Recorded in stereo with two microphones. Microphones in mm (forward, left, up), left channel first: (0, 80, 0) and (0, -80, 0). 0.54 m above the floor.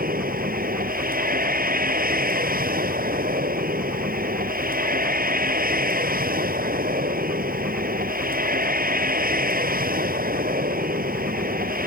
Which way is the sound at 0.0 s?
65° right (ahead or behind).